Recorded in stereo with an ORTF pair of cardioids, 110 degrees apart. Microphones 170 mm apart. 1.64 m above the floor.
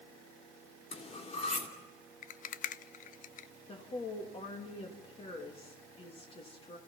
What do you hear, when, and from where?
0.9 s cutlery clinking: 40° left, 3 m
2.2 s a rattle: 50° left, 0.5 m
3.7 s a woman speaking: 35° left, 3 m